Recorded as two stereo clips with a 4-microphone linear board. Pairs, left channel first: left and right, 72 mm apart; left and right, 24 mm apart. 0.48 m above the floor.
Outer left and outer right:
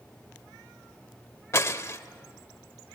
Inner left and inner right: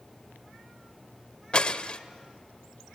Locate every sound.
1.5 s breaking glass: 40° left (ahead or behind), 0.8 m